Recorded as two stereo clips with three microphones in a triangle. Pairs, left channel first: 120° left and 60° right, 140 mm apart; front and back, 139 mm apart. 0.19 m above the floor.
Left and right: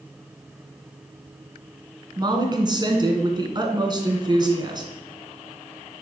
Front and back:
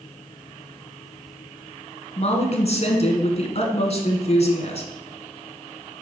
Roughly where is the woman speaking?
Ahead.